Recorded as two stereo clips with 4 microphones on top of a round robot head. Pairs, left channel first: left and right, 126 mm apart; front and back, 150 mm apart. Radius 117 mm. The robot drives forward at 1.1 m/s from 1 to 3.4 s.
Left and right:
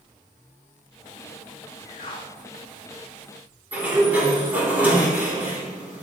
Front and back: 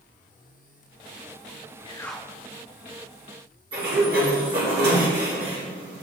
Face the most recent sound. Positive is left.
turn(degrees=-165)